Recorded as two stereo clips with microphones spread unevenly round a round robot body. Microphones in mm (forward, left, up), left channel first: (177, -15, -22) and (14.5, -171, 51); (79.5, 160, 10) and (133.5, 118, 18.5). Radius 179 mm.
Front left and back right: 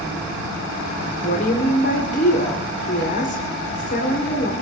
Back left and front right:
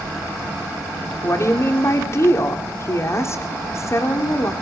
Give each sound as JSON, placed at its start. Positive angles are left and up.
{"t": 1.2, "sound": "a woman speaking", "azimuth_deg": 100, "distance_m": 2.5}